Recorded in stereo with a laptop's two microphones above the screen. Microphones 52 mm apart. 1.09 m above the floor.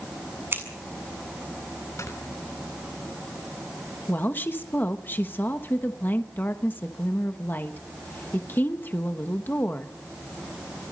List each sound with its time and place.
0.5 s scissors: 45° right (ahead or behind), 7 m
2.0 s snoring: 70° left (ahead or behind), 6.5 m
4.1 s a woman speaking: 40° left (ahead or behind), 1.2 m